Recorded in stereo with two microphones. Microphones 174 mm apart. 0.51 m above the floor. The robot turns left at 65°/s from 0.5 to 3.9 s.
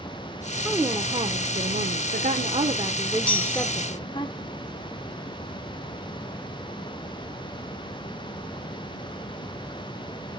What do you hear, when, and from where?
0.7 s a woman speaking: 5° right, 1.0 m; by 4.3 s 145° left, 1.0 m
3.3 s a chime: 5° left (ahead or behind), 4 m; by 3.7 s 25° right (ahead or behind), 4 m